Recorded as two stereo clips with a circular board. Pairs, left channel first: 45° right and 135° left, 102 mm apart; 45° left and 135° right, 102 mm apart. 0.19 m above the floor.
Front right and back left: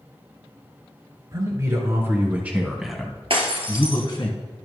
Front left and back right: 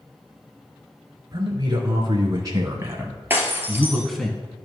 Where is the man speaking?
Straight behind, 2.0 m; by 4.3 s 40° right, 1.4 m.